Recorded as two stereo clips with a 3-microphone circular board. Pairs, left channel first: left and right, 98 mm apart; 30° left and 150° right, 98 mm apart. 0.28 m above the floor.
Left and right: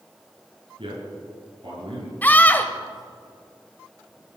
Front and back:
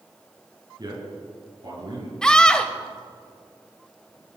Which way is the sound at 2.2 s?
90° left.